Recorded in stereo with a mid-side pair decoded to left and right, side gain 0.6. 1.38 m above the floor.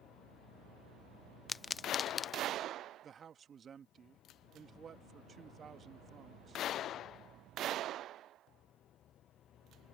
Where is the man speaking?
35° right.